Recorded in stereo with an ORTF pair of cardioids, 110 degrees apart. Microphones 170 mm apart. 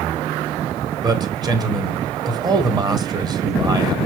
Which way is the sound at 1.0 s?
25° right.